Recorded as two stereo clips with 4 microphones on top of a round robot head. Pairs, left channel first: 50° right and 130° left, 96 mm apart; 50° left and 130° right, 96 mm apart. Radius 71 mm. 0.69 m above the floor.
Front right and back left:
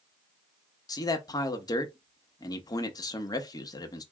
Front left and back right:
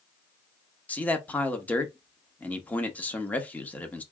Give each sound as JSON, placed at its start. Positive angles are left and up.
{"t": 0.9, "sound": "a man speaking", "azimuth_deg": -20, "distance_m": 0.9}